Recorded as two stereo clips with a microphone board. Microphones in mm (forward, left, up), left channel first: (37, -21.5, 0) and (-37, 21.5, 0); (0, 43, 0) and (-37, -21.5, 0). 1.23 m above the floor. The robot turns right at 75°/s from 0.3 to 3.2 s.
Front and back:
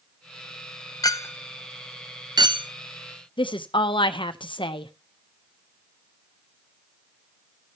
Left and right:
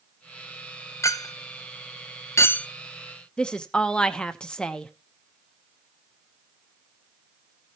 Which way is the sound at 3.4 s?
15° right.